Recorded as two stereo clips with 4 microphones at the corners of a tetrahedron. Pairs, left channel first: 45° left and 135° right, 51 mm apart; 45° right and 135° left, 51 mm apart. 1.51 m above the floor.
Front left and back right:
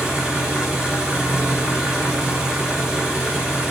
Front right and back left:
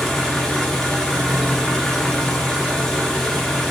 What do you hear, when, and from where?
0.0 s an engine running: 95° right, 1.0 m